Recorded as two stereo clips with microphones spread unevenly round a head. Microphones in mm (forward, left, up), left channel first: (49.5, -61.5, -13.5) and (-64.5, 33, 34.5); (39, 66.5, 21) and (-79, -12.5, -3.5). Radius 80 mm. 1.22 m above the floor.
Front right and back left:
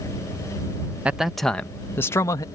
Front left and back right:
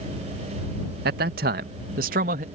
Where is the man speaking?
135° right; by 2.4 s 105° right.